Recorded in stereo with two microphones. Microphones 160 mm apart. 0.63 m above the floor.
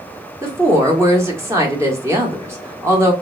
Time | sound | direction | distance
0.4 | a woman speaking | 15° right (ahead or behind) | 1.0 m